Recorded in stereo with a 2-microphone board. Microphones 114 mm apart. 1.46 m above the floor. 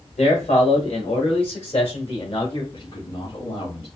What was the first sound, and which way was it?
A man speaking, 80° left.